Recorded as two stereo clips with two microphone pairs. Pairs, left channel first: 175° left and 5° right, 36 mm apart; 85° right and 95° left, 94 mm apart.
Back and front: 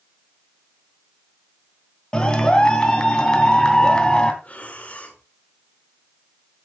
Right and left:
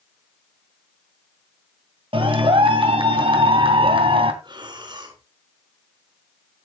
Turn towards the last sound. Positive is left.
turn(degrees=130)